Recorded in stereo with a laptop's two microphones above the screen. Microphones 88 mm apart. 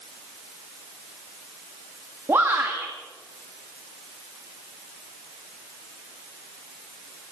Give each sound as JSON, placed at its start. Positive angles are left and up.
{"t": 2.3, "sound": "a shout", "side_deg": -30, "distance_m": 1.9}